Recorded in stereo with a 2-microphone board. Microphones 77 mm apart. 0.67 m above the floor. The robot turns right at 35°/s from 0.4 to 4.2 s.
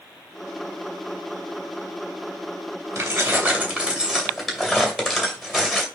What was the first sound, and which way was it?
Keys jangling, 50° right.